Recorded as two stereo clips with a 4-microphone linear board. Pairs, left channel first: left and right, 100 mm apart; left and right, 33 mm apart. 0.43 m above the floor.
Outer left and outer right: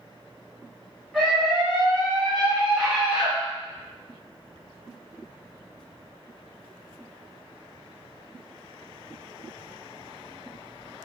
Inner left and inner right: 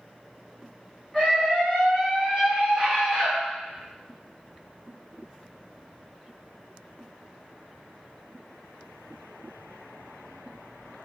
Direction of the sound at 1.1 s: Centre (ahead or behind).